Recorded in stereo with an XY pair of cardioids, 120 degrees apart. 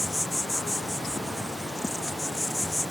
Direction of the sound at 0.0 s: 5° left.